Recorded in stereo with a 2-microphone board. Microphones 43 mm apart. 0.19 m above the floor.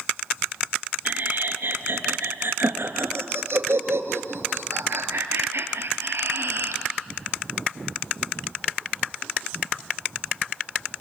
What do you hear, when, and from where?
1.1 s laughter: 50° right (ahead or behind), 2.5 m; by 6.8 s 60° right (ahead or behind), 4 m